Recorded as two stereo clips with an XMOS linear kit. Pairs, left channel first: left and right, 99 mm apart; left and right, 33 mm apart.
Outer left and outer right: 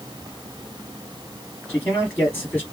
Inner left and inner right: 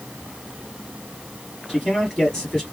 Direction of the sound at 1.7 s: 10° left (ahead or behind).